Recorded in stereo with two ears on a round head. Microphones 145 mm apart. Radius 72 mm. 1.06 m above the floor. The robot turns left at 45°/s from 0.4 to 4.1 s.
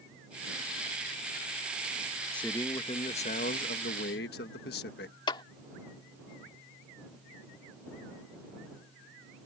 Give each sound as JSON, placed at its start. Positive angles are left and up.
{"t": 2.3, "sound": "a man speaking", "azimuth_deg": 175}
{"t": 5.3, "sound": "a clap", "side_deg": 30}